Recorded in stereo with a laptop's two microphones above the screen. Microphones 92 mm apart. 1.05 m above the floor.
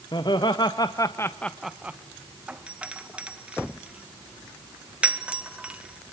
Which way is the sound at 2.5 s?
15° right (ahead or behind).